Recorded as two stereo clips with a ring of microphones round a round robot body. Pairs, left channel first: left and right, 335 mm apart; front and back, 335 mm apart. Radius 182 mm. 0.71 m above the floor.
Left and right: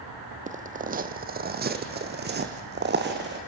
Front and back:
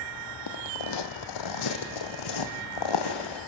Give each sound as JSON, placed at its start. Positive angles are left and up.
{"t": 0.5, "sound": "footsteps", "azimuth_deg": -25, "distance_m": 1.3}